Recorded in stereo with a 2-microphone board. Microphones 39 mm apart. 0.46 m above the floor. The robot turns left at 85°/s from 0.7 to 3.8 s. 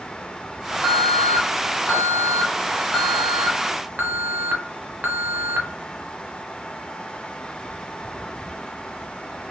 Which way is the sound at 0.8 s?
Straight behind.